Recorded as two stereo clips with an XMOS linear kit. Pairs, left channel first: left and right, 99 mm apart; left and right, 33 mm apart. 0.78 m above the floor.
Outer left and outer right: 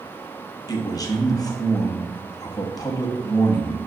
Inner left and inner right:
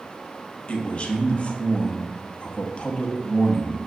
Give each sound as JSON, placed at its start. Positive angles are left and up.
{"t": 0.7, "sound": "a man speaking", "side_deg": 40, "distance_m": 0.7}